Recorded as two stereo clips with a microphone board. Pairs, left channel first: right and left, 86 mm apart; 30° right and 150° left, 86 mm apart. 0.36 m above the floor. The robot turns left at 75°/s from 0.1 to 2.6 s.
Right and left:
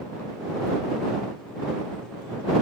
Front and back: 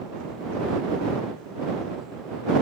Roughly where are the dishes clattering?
No dishes clattering in this recording.